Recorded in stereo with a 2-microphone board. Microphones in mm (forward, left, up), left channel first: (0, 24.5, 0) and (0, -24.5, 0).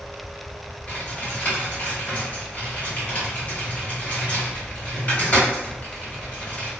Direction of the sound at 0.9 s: 30° left (ahead or behind).